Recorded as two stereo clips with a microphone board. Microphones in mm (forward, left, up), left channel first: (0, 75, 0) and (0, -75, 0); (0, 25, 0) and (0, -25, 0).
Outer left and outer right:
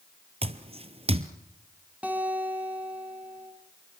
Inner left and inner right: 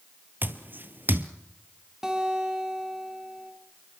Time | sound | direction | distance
0.4 | footsteps | 40° right (ahead or behind) | 1.1 m
2.0 | a guitar | 10° right (ahead or behind) | 3.5 m